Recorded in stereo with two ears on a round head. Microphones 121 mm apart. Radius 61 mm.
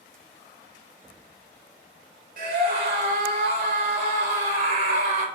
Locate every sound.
2.4 s a scream: 65° right (ahead or behind), 3 m; by 5.3 s 70° right (ahead or behind), 3.5 m